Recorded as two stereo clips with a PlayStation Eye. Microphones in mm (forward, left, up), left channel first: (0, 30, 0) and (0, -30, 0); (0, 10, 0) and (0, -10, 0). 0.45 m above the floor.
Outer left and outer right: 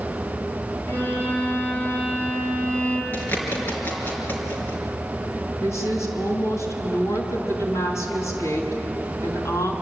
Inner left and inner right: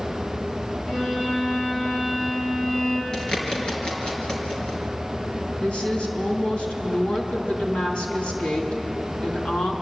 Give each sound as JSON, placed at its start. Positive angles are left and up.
{"t": 0.9, "sound": "a violin", "side_deg": 30, "distance_m": 7.0}
{"t": 3.1, "sound": "a bird", "side_deg": 35, "distance_m": 4.5}
{"t": 5.6, "sound": "a woman speaking", "side_deg": 60, "distance_m": 4.0}